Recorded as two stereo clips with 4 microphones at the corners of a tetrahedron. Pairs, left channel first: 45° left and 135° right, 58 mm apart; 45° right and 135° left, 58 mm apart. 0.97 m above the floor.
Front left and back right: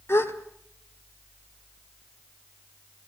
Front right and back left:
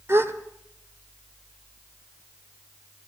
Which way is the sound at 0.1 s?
90° left.